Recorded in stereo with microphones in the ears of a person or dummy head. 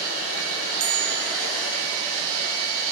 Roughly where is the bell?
Right.